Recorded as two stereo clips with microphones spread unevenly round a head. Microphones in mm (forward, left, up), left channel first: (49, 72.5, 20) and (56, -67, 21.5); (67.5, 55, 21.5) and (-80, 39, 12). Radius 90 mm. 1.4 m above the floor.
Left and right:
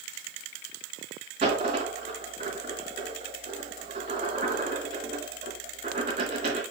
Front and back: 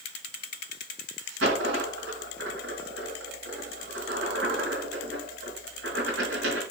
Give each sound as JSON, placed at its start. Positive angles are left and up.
{"t": 1.4, "sound": "a dropped coin", "azimuth_deg": -140, "distance_m": 4.0}